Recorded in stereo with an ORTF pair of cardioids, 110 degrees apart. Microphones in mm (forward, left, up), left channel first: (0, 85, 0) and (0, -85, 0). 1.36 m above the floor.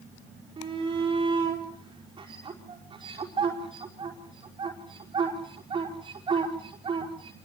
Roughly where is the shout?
Ahead right.